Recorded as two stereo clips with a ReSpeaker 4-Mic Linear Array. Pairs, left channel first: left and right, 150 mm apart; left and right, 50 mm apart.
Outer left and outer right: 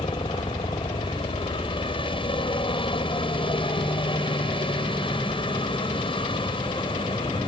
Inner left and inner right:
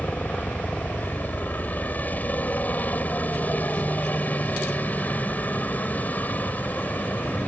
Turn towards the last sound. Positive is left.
turn(degrees=35)  # may be behind; listen again after turning